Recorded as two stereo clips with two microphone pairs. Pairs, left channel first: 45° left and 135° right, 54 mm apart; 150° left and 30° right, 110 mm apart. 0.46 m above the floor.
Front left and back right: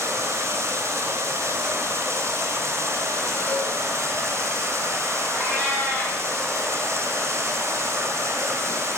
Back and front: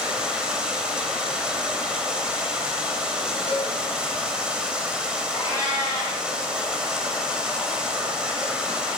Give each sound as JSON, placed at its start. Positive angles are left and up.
{"t": 0.0, "sound": "running water", "azimuth_deg": -115, "distance_m": 1.9}
{"t": 3.5, "sound": "a cowbell", "azimuth_deg": -5, "distance_m": 3.5}
{"t": 5.3, "sound": "a cat meowing", "azimuth_deg": 90, "distance_m": 7.0}